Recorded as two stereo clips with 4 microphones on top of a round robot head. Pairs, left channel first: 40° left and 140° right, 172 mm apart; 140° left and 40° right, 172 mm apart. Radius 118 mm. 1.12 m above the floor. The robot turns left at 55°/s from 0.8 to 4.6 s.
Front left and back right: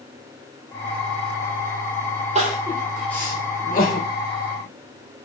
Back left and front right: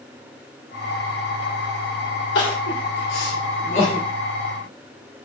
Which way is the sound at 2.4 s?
165° left.